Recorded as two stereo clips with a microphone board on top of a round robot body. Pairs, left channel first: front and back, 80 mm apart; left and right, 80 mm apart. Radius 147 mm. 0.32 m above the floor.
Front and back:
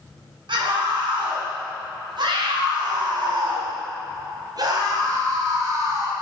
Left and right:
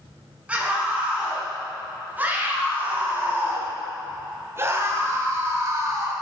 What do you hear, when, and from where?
0.5 s a scream: 165° right, 5 m; by 6.1 s 135° right, 3 m